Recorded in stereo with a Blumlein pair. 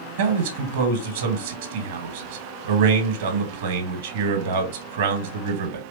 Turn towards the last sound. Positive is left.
turn(degrees=-55)